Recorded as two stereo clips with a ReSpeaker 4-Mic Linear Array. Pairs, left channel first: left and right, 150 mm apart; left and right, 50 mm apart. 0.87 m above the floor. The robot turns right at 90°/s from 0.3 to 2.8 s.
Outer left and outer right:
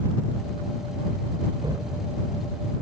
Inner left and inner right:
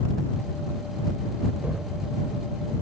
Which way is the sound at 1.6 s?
35° right.